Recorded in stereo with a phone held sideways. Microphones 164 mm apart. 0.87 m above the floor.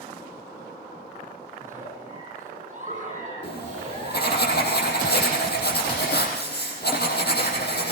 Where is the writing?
80° left, 5 m.